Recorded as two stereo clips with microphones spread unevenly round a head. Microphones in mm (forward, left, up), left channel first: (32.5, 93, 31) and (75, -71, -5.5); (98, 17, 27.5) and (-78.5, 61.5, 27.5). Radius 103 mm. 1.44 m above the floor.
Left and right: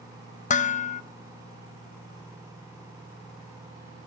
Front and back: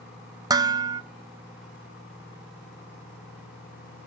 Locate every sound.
0.5 s dishes clattering: 100° left, 0.8 m